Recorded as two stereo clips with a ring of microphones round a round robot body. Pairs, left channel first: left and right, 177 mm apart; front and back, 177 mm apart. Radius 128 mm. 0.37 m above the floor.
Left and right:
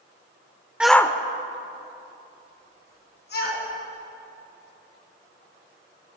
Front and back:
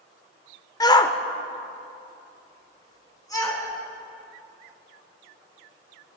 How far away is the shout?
About 0.8 m.